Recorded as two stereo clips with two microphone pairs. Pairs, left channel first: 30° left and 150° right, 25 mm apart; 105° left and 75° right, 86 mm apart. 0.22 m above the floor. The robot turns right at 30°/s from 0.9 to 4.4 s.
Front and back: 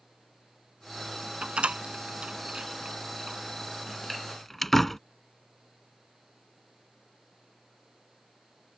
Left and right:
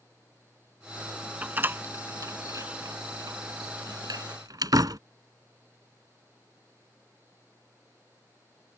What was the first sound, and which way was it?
A door slam, 140° right.